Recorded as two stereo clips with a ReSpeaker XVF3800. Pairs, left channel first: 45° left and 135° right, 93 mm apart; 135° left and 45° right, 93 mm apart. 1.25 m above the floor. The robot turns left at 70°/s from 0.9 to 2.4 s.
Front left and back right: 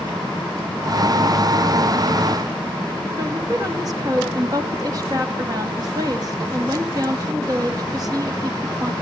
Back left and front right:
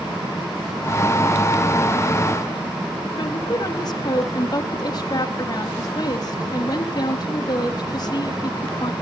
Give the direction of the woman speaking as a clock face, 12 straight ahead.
6 o'clock.